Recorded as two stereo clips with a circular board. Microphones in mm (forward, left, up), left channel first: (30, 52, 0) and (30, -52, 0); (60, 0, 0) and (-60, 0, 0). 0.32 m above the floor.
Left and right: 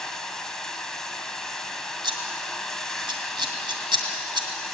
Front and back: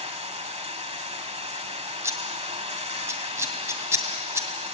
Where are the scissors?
115° right, 2.0 m.